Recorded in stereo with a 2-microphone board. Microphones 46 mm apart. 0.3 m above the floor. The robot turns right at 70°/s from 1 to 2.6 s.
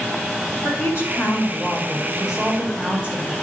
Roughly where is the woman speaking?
Left.